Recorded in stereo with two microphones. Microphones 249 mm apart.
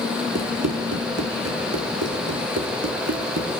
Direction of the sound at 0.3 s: 80° right.